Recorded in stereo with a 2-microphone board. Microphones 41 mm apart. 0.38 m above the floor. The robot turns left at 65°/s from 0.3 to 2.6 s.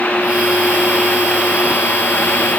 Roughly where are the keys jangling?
No keys jangling in this recording.